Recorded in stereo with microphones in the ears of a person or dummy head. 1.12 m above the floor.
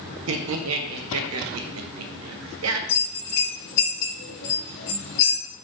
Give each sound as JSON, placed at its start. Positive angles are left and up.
{"t": 0.3, "sound": "laughter", "side_deg": -80, "distance_m": 0.7}
{"t": 2.9, "sound": "a bell", "side_deg": 60, "distance_m": 1.0}